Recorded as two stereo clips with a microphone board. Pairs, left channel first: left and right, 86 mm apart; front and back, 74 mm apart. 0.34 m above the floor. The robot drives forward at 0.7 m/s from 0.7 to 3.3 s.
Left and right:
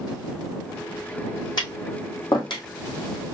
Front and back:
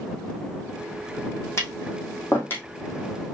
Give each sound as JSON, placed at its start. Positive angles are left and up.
{"t": 1.6, "sound": "tapping", "azimuth_deg": 50, "distance_m": 2.5}